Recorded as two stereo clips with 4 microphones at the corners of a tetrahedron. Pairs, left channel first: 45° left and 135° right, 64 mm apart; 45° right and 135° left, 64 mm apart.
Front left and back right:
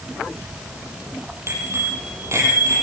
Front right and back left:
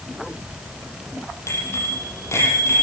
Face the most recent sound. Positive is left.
turn(degrees=-95)